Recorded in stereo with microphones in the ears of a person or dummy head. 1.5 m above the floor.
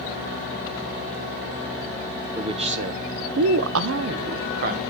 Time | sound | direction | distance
2.4 | a man speaking | 25° right (ahead or behind) | 1.0 m